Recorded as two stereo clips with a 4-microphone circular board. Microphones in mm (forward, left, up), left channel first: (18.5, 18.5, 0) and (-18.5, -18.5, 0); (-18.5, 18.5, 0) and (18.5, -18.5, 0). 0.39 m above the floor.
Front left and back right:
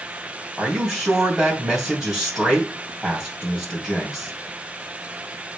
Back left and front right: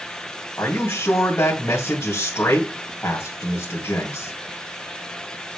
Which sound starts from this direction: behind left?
A man speaking, at 0.6 s.